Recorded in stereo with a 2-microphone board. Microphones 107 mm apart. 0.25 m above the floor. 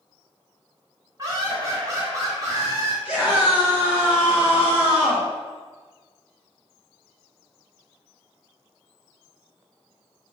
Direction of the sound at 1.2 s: 35° right (ahead or behind).